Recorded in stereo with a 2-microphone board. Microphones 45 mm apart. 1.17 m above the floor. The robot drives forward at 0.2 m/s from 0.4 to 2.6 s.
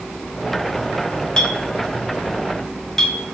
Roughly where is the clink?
Centre.